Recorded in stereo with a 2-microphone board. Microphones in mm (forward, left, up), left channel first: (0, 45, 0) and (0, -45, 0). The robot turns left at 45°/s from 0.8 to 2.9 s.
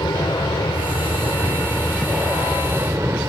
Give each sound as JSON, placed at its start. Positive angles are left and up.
{"t": 0.0, "sound": "an aircraft", "side_deg": 50}